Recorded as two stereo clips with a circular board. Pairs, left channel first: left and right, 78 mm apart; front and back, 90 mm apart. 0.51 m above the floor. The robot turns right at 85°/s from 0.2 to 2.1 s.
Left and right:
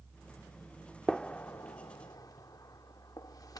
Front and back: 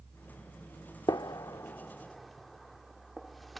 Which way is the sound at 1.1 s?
5° left.